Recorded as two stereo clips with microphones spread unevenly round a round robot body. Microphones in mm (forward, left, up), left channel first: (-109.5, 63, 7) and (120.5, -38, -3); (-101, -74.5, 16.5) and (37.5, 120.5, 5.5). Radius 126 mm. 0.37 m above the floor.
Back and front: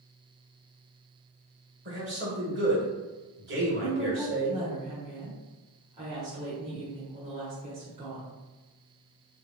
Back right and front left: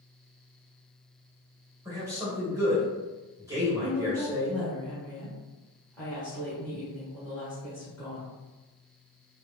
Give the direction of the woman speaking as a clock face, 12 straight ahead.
1 o'clock.